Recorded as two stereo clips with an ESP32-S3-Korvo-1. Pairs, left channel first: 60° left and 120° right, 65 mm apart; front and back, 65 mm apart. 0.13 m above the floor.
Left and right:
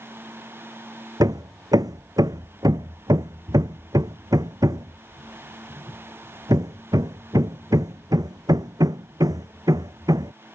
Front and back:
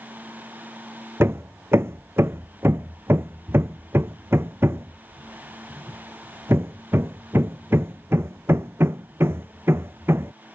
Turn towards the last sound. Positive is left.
turn(degrees=-130)